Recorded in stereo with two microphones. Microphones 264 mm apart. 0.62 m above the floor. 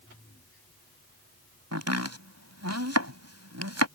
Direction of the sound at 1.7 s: 75° right (ahead or behind).